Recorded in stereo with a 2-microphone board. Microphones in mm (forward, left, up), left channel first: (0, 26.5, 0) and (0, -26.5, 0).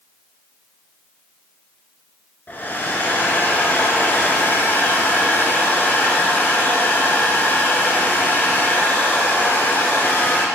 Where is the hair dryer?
35° left (ahead or behind), 1.5 m.